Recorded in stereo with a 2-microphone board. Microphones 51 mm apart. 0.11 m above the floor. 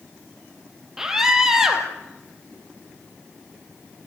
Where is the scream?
10° right (ahead or behind), 3.5 m.